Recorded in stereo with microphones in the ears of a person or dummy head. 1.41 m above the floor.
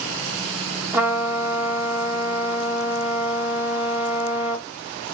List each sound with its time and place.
0.9 s a trumpet: 10° right (ahead or behind), 1.1 m